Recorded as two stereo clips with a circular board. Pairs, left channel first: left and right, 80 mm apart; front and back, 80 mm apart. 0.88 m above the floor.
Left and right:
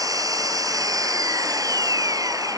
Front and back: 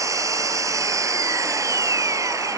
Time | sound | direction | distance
0.0 | an engine running | 130° right | ?